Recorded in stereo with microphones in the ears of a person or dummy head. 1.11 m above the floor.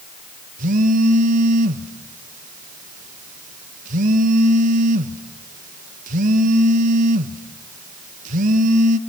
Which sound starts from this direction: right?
A phone buzzing, at 0.6 s.